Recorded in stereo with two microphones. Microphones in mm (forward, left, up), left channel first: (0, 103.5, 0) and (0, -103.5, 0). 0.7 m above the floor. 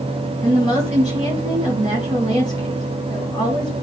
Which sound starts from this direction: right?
A woman speaking, at 0.4 s.